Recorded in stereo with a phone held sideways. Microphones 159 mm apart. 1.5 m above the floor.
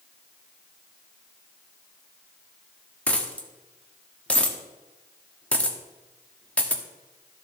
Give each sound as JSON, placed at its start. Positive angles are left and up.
{"t": 3.1, "sound": "a dropped coin", "side_deg": 10, "distance_m": 1.2}